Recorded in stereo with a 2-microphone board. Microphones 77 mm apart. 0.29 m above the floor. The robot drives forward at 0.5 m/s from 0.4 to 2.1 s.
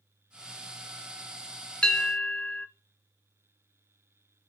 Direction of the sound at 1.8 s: 15° left (ahead or behind).